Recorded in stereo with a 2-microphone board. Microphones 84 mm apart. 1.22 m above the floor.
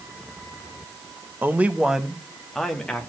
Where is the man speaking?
25° right (ahead or behind), 0.9 m; by 3.1 s 10° left (ahead or behind), 2 m.